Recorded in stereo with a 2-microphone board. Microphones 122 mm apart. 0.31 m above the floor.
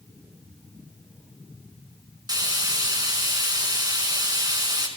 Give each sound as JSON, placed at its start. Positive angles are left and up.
{"t": 2.3, "sound": "frying", "side_deg": -30, "distance_m": 4.0}